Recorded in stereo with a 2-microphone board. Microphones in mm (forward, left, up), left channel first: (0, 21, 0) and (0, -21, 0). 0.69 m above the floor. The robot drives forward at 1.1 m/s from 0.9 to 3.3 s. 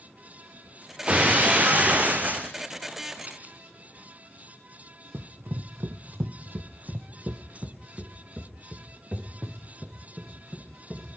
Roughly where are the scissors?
Right.